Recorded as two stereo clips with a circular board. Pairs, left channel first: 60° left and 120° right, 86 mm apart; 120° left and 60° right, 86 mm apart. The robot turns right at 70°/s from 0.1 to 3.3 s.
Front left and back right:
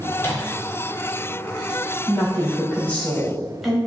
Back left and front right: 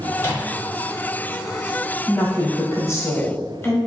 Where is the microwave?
90° left, 0.9 m; by 0.5 s 115° left, 0.9 m.